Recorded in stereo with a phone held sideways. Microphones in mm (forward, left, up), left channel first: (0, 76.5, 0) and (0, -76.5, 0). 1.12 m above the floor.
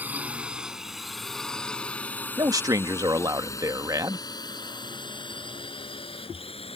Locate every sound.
0.0 s a drone: 10° right (ahead or behind); by 6.8 s 40° left (ahead or behind)
2.4 s a man speaking: 25° right (ahead or behind)